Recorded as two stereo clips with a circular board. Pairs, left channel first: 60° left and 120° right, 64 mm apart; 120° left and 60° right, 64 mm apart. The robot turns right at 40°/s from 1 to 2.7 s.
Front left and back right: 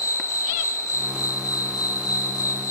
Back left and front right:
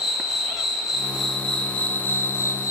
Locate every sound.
0.0 s an insect: 25° left, 6 m; by 2.7 s 90° left, 6 m